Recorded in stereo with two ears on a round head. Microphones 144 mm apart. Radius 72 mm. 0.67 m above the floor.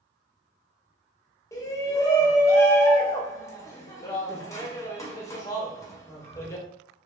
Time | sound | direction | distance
1.5 | a shout | 20° left (ahead or behind) | 0.7 m